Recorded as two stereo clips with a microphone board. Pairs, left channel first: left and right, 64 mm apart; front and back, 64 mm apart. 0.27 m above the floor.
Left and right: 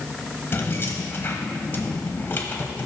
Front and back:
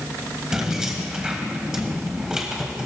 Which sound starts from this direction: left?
Keys jangling, at 0.5 s.